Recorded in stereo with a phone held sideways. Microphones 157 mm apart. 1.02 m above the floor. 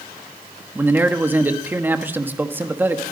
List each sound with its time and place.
0.8 s a man speaking: 10° right (ahead or behind), 1.3 m